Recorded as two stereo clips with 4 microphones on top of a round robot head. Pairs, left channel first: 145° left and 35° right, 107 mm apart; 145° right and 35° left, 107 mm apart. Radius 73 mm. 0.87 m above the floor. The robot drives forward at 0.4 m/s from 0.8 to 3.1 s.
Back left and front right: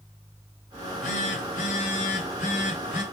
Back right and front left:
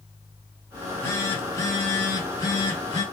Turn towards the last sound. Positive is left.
turn(degrees=160)